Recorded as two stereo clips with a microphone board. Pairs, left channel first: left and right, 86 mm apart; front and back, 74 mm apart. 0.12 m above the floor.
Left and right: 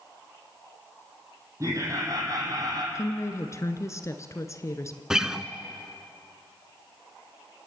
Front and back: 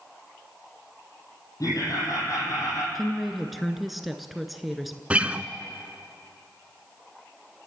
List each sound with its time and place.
1.6 s laughter: 35° right, 4.5 m; by 2.9 s 50° right, 5.5 m
3.0 s a woman speaking: 90° left, 1.3 m
5.1 s a guitar: 155° right, 0.9 m